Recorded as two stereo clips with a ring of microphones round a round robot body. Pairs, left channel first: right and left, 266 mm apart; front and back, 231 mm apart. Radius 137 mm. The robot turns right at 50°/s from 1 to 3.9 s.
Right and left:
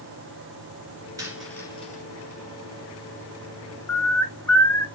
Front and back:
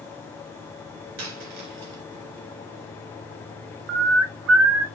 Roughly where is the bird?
Behind.